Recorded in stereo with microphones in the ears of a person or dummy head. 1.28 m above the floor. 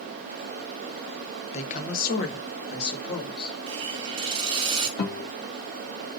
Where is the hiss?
30° right (ahead or behind), 0.8 m.